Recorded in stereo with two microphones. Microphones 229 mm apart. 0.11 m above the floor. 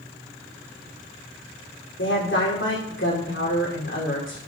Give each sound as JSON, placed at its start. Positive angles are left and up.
{"t": 2.0, "sound": "a woman speaking", "side_deg": 55, "distance_m": 7.0}